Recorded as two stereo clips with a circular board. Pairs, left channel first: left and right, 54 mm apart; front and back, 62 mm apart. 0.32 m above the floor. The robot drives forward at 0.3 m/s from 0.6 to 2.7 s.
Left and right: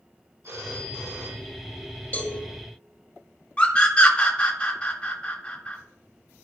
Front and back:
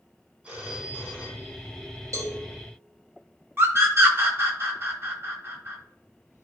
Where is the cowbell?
150° left, 4 m; by 2.4 s 155° left, 4 m.